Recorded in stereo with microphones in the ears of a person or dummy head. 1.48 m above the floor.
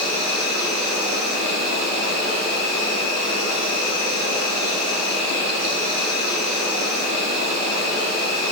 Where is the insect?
35° right (ahead or behind), 1.1 m.